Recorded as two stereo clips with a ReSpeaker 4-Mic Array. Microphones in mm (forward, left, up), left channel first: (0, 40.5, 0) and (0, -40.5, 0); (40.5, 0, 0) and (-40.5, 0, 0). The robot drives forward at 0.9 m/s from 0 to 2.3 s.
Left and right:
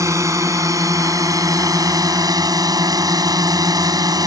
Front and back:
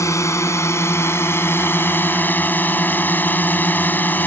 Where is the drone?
45° right; by 4.3 s 60° right.